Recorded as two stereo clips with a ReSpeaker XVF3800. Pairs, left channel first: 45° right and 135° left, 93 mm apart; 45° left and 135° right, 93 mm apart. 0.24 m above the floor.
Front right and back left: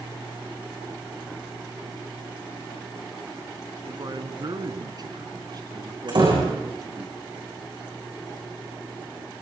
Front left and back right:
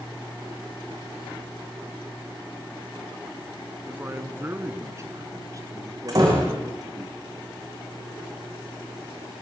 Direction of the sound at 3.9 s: 160° left.